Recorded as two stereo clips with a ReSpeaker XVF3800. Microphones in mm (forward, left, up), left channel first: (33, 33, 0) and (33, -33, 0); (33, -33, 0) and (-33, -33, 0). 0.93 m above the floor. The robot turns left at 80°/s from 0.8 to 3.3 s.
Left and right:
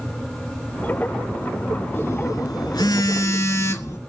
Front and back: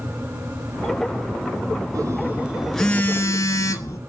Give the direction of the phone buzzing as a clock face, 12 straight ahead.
7 o'clock.